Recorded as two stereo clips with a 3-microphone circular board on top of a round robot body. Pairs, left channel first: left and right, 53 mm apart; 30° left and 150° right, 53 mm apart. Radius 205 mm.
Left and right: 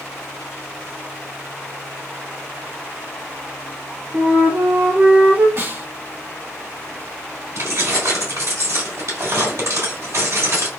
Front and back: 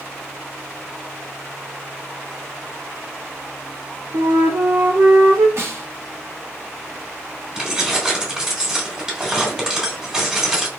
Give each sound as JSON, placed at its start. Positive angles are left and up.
{"t": 4.1, "sound": "a flute", "azimuth_deg": -150, "distance_m": 2.0}
{"t": 5.6, "sound": "a snare drum", "azimuth_deg": -120, "distance_m": 2.0}
{"t": 7.5, "sound": "keys jangling", "azimuth_deg": -75, "distance_m": 2.0}